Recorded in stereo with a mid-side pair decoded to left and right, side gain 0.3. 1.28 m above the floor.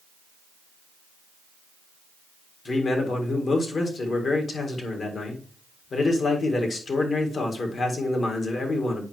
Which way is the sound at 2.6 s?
65° left.